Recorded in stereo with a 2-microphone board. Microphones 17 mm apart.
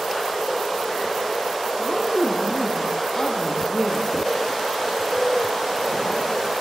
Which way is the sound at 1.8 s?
30° left (ahead or behind).